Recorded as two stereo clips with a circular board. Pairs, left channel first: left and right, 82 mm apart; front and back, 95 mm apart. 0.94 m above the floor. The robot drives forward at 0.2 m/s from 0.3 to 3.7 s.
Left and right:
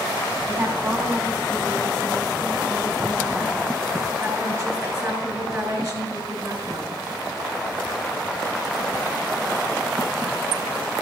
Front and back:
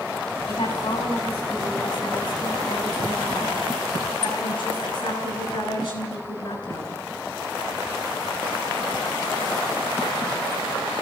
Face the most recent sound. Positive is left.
turn(degrees=-40)